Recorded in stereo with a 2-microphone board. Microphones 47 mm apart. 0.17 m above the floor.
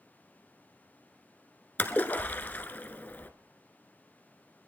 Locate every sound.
1.8 s a splash: 40° left (ahead or behind), 0.9 m